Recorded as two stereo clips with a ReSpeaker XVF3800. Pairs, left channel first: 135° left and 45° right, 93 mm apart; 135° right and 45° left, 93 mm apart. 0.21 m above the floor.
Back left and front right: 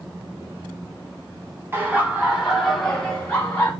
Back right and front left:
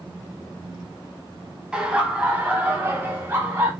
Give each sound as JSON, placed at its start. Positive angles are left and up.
{"t": 1.7, "sound": "laughter", "azimuth_deg": -25, "distance_m": 1.2}